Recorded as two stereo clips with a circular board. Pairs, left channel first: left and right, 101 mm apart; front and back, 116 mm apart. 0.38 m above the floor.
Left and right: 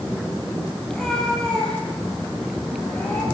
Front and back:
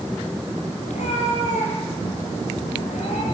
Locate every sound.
0.9 s a cat meowing: 5° left, 7 m; by 3.2 s 15° left, 7.5 m